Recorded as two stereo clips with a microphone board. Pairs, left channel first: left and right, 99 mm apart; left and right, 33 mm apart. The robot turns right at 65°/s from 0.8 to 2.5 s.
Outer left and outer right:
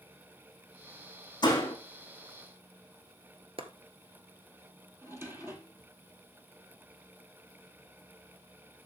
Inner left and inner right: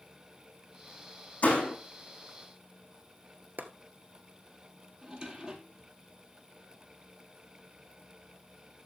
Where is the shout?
I don't hear a shout.